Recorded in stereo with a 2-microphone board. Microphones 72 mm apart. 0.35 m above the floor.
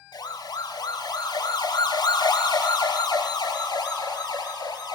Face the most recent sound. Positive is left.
turn(degrees=75)  # may be behind; listen again after turning